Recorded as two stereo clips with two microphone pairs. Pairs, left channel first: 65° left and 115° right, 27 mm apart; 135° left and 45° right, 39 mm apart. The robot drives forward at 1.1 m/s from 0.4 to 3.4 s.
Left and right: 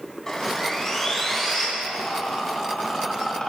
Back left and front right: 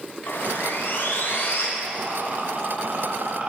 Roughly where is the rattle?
Ahead.